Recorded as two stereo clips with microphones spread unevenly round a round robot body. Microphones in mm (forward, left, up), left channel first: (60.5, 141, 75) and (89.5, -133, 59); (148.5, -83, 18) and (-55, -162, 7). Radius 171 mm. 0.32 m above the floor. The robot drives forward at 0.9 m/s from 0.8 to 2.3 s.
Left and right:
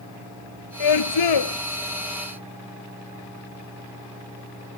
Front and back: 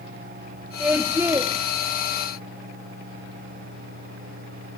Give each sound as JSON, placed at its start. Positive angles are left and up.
{"t": 0.8, "sound": "a scream", "azimuth_deg": 115}